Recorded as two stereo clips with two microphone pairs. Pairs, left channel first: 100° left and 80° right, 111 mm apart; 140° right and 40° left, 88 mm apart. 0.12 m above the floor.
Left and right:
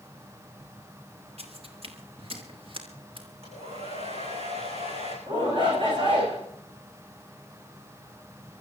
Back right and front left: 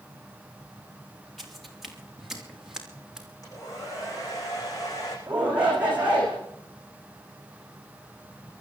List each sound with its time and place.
1.4 s footsteps: 50° right, 4 m; by 3.3 s 45° right, 5.5 m
3.4 s a hair dryer: 90° right, 9 m
5.3 s a shout: 35° right, 8.5 m